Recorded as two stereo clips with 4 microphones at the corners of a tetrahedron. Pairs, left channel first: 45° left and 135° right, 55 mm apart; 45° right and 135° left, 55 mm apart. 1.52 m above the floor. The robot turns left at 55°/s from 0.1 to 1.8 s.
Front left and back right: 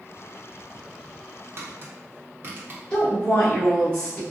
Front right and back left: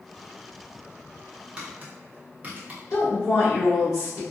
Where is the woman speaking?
25° right, 1.3 m.